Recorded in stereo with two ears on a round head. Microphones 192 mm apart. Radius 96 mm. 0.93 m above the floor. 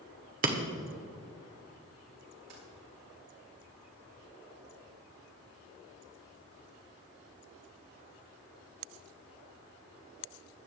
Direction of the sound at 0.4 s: 40° right (ahead or behind).